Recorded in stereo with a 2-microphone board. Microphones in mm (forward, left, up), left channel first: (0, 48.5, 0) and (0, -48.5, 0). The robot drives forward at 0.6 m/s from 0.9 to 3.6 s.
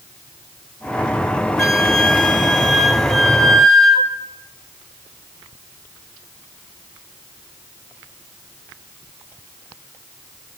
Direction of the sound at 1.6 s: Centre (ahead or behind).